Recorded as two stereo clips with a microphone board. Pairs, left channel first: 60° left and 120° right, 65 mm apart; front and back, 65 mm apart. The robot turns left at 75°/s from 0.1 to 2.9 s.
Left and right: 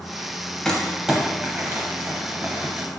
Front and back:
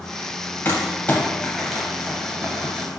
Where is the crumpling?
10° right, 0.8 m; by 2.9 s straight behind, 0.8 m.